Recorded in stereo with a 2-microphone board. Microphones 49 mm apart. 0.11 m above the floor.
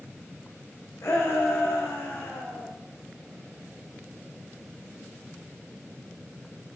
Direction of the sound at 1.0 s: 65° left (ahead or behind).